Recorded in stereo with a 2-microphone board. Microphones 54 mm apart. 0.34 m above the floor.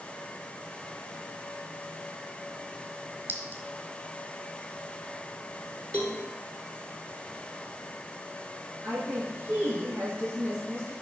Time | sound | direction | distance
3.3 | a clink | 40° right (ahead or behind) | 1.1 m
5.9 | a cowbell | 25° left (ahead or behind) | 1.2 m
8.8 | a woman speaking | 45° right (ahead or behind) | 3.5 m